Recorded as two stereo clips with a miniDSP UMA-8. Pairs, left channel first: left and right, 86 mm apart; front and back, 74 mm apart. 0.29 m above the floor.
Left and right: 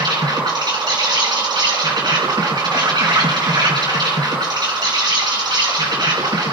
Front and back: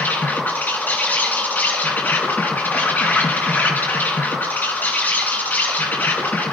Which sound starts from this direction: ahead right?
An insect, at 0.0 s.